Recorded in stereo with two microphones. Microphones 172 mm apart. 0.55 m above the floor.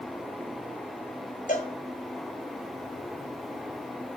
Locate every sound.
1.5 s a cowbell: 50° left (ahead or behind), 2 m